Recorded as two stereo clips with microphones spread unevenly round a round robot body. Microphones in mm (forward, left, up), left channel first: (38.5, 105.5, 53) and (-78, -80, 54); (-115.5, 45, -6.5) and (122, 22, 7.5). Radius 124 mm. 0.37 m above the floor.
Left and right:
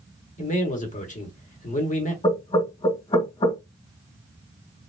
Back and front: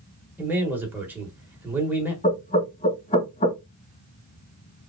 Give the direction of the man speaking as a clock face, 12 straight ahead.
9 o'clock.